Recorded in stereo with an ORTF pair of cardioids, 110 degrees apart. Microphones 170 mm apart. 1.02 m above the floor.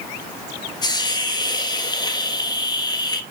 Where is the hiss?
25° left, 1.3 m.